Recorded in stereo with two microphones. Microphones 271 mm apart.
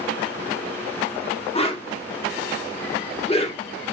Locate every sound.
1.6 s a whoosh: 20° left (ahead or behind), 0.8 m